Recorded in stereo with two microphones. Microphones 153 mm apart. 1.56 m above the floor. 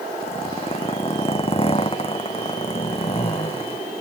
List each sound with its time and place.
0.2 s a zipper: 35° left (ahead or behind)